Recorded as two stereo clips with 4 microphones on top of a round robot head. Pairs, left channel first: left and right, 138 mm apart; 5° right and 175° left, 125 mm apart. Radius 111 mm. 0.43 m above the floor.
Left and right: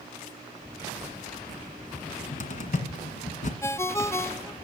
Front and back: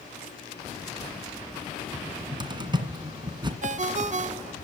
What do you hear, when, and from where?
1.9 s a cupboard door: 120° left, 1.9 m
3.6 s a ringtone: 160° left, 0.6 m